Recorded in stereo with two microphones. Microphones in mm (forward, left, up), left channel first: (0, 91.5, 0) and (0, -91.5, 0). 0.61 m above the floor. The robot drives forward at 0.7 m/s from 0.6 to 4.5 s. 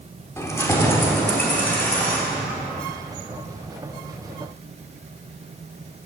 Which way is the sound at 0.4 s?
15° left (ahead or behind).